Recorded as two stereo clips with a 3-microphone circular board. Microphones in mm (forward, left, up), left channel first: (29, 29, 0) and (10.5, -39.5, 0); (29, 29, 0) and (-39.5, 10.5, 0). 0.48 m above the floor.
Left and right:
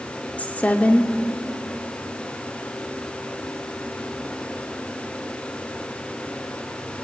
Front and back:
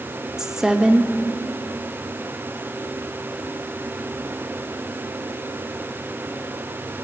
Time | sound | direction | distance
0.4 | a woman speaking | 120° left | 0.7 m